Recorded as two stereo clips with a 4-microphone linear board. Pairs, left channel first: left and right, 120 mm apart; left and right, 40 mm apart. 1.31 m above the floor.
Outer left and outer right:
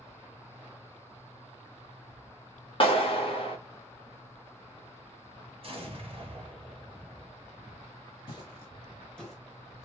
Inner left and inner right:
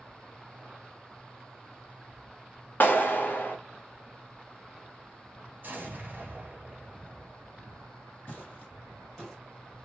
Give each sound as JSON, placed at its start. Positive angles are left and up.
{"t": 2.8, "sound": "a clap", "side_deg": 50, "distance_m": 0.8}
{"t": 5.6, "sound": "an explosion", "side_deg": -50, "distance_m": 0.7}
{"t": 8.3, "sound": "footsteps", "side_deg": 35, "distance_m": 1.6}